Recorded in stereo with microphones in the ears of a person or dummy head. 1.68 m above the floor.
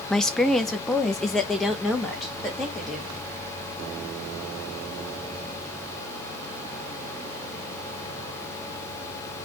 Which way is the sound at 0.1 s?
5° left (ahead or behind).